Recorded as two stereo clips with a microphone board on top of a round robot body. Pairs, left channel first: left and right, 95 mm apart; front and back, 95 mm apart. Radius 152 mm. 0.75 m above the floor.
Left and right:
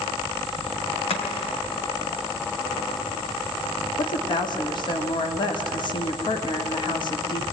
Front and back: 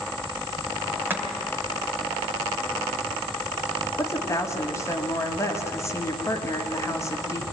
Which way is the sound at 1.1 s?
110° left.